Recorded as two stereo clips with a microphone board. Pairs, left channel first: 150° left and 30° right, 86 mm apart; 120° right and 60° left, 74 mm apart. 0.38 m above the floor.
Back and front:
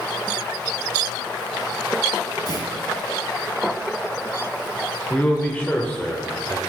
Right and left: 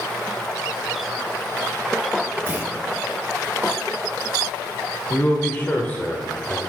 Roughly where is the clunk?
Behind left.